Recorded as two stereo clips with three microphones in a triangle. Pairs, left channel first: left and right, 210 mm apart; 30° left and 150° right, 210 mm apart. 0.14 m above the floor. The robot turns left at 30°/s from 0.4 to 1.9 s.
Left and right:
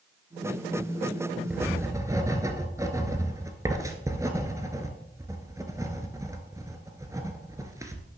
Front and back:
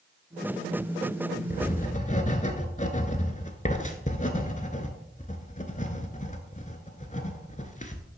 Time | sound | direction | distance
1.5 | writing | 5° right | 0.9 m